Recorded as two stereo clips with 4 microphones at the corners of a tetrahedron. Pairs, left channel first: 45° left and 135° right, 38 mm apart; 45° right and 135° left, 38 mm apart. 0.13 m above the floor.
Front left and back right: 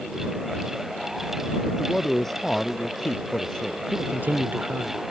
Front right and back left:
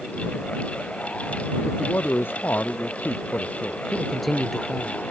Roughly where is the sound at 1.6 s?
Ahead right.